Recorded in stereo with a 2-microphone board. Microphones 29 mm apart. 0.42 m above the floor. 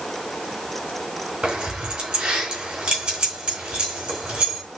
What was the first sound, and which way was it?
Keys jangling, 40° right (ahead or behind).